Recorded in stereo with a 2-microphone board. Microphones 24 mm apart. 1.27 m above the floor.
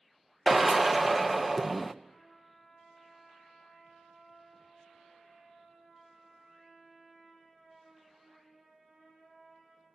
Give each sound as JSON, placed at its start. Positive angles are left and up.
{"t": 0.5, "sound": "a drill", "side_deg": -10, "distance_m": 0.5}
{"t": 2.0, "sound": "a trumpet", "side_deg": -15, "distance_m": 5.5}